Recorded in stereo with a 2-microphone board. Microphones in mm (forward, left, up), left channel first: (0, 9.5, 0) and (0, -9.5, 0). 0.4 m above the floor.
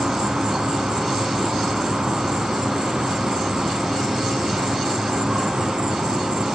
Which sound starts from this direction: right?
An insect, at 0.0 s.